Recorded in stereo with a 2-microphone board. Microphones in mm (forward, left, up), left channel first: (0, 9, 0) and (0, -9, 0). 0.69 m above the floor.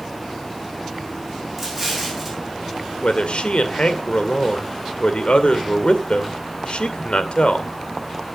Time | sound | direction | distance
1.6 | an explosion | 10° right (ahead or behind) | 6 m
3.0 | a man speaking | 75° left (ahead or behind) | 2 m